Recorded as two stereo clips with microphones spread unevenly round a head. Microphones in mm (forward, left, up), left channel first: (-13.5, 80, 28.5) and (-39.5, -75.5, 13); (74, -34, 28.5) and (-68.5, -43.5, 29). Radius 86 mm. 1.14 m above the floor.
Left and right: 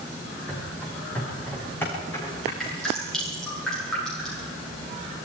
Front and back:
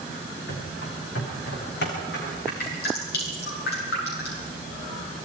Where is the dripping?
5° right, 9.5 m.